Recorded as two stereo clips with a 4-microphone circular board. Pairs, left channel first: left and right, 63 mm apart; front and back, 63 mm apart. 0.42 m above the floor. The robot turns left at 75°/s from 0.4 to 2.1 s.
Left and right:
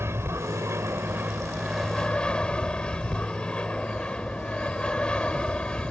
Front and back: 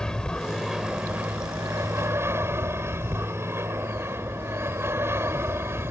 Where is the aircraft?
75° right; by 5.9 s 160° left.